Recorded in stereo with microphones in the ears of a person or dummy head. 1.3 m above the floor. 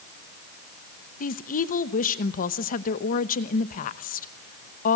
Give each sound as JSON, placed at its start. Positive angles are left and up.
{"t": 1.2, "sound": "a woman speaking", "side_deg": 50, "distance_m": 1.1}